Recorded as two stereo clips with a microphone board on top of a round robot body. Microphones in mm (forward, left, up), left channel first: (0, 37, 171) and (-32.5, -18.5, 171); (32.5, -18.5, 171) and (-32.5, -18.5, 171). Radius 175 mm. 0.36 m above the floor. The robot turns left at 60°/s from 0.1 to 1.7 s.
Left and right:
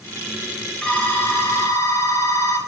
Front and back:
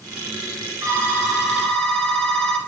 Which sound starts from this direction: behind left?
A phone ringing, at 0.8 s.